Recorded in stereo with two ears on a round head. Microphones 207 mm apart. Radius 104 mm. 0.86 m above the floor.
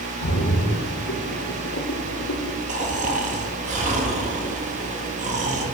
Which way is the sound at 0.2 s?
65° left (ahead or behind).